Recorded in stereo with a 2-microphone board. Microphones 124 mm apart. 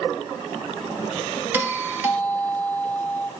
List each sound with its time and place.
1.5 s a doorbell: 15° right (ahead or behind), 1.5 m